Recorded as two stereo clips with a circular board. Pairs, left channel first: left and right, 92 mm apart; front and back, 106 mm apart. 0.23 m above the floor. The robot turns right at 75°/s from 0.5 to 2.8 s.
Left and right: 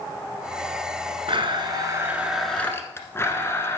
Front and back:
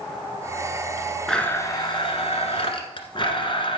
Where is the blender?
85° right, 1.4 m; by 3.8 s 30° left, 1.4 m.